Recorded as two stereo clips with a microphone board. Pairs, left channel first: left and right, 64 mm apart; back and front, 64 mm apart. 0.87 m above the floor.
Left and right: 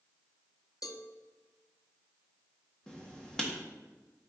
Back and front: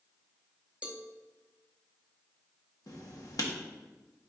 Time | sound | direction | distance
0.8 | a cowbell | 70° left | 0.7 m
2.9 | writing | 170° left | 1.3 m